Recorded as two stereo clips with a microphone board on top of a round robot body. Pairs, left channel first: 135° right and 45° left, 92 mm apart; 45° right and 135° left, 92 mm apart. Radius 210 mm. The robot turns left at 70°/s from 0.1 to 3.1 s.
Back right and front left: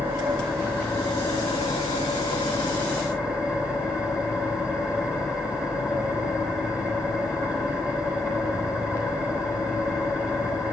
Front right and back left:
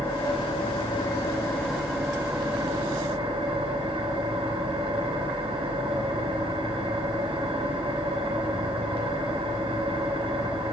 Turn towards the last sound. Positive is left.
turn(degrees=125)